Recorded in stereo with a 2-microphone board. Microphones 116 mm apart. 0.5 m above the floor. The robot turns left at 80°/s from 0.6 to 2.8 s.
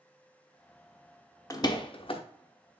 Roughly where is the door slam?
Left.